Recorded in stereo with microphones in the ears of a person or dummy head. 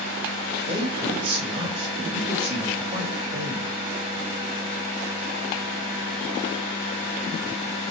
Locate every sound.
0.7 s a man speaking: 25° right (ahead or behind), 2.5 m